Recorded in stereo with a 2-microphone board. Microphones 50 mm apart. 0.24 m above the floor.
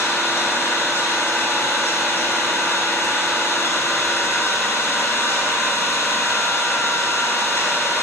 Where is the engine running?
55° left (ahead or behind), 1.0 m.